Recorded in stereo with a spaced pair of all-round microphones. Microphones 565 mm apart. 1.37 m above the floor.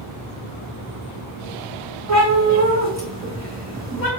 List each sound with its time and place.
2.1 s a cat meowing: 25° right (ahead or behind), 1.8 m